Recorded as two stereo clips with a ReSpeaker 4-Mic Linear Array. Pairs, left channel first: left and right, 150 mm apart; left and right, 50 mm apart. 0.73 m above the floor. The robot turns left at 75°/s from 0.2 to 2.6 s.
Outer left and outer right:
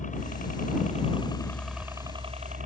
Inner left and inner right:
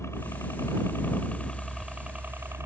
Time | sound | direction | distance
0.0 | a helicopter | 115° left | ?